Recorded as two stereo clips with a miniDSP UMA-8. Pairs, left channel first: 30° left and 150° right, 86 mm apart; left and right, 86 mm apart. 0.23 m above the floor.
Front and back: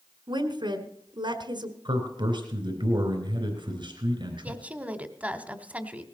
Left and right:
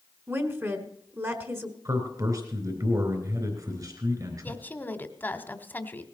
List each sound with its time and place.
0.3 s a woman speaking: 145° right, 2 m
1.9 s a man speaking: 130° right, 3.5 m
4.4 s a woman speaking: 145° left, 1.3 m